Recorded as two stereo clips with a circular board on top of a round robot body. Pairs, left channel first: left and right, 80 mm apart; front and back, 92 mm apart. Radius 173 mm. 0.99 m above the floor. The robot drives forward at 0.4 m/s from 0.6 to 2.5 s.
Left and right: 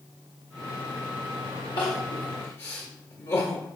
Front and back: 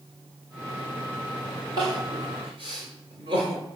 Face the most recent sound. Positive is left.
turn(degrees=145)